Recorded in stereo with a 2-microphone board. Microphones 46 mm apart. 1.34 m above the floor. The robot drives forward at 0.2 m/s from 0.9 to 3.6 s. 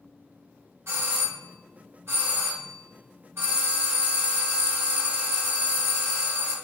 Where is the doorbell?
70° right (ahead or behind), 1.2 m; by 6.5 s 60° right (ahead or behind), 1.4 m.